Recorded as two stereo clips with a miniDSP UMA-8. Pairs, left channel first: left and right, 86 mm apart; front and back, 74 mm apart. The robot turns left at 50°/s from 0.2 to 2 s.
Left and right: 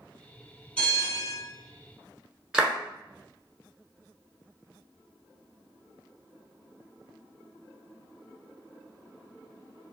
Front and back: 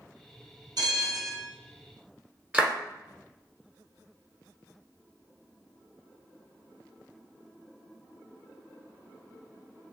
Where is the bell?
165° left, 1.6 m; by 1.4 s 130° left, 1.6 m.